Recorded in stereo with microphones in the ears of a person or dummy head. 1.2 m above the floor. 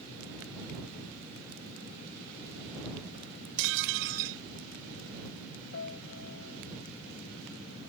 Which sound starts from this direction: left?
A piano, at 5.7 s.